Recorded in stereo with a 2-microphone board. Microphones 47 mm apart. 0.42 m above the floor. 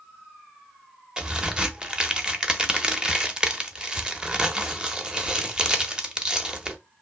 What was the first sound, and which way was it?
A crack, 20° right (ahead or behind).